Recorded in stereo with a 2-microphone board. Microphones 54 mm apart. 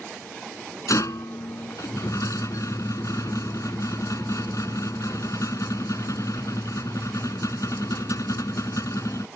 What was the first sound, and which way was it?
A rattle, 75° left (ahead or behind).